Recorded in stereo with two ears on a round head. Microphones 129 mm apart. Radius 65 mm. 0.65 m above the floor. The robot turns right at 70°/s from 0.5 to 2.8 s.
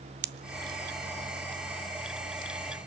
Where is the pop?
75° right (ahead or behind), 0.5 m; by 2.5 s 60° left (ahead or behind), 0.5 m.